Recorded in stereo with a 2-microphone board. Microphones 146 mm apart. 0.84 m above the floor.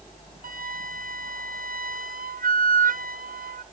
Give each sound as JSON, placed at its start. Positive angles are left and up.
{"t": 0.4, "sound": "a flute", "side_deg": -70, "distance_m": 0.5}